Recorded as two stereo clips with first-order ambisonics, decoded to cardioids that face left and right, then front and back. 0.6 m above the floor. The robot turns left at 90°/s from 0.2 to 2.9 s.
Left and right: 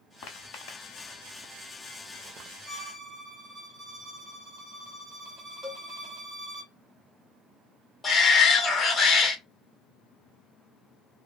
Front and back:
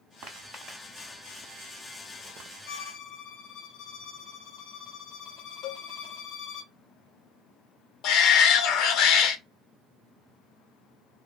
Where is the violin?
Straight ahead, 0.9 m; by 6.6 s 20° right, 0.9 m.